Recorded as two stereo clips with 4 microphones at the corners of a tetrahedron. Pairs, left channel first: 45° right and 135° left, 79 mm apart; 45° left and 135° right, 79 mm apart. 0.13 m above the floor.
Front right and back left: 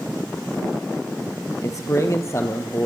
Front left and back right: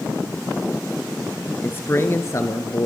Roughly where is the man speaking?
Ahead.